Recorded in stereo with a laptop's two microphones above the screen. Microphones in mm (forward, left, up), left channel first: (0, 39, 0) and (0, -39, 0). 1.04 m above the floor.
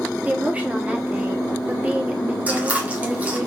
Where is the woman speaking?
20° right (ahead or behind), 0.7 m.